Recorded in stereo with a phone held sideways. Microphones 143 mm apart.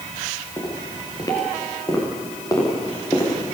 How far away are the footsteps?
About 9 m.